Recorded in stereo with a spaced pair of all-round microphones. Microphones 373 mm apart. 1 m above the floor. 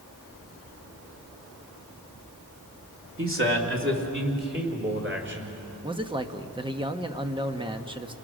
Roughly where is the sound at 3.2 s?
Right.